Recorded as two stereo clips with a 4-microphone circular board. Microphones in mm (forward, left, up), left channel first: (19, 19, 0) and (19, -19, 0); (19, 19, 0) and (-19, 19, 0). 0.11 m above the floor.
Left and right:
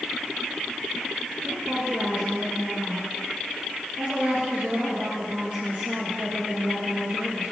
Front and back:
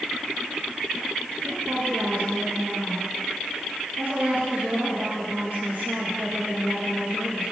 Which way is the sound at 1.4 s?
150° right.